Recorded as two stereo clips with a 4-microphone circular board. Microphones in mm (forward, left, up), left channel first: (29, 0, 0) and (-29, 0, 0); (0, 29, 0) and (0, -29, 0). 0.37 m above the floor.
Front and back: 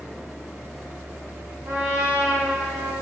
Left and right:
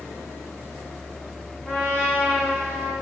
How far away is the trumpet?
About 4 m.